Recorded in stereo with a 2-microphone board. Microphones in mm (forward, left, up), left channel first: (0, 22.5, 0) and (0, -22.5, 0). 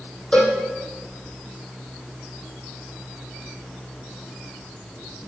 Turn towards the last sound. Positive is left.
turn(degrees=20)  # may be behind; listen again after turning